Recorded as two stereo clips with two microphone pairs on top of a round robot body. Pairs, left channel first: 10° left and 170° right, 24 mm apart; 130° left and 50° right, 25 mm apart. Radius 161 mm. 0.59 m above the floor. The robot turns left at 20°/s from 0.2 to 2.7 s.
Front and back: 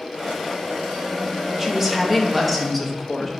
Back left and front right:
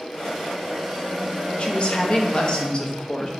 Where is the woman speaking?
120° left, 1.2 m; by 3.3 s 95° left, 1.2 m.